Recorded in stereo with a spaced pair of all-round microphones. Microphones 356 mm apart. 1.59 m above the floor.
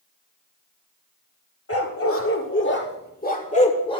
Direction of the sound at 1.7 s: 40° left (ahead or behind).